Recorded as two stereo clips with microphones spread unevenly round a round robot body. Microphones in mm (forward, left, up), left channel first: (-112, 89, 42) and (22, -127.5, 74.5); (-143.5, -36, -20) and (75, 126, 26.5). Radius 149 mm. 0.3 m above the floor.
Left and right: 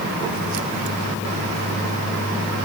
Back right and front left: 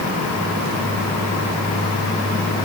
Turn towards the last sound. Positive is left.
No sound to turn to.